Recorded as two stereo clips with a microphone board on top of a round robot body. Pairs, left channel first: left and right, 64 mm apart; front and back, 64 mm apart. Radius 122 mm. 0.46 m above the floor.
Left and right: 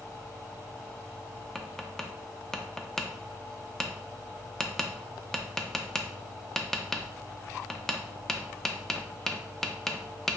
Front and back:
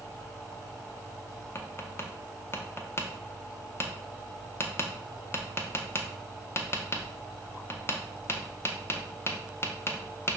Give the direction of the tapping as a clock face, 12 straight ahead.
12 o'clock.